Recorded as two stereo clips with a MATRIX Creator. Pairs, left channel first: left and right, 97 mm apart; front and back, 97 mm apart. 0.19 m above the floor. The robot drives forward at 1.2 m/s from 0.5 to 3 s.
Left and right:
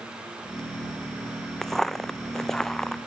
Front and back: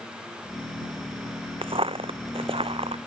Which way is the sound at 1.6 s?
175° left.